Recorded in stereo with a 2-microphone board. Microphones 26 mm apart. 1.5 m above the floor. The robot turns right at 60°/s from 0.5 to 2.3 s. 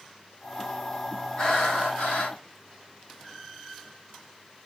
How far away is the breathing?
About 4 m.